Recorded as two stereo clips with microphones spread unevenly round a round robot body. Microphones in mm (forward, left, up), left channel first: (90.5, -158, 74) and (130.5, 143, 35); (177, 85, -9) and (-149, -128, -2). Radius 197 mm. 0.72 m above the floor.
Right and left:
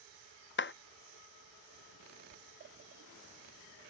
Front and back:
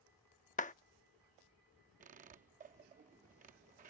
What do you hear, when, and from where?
0.6 s a clap: 40° right
2.0 s a squeak: 140° left